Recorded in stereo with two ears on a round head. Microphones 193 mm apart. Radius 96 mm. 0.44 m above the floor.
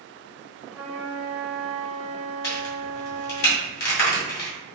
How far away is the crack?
About 1.9 m.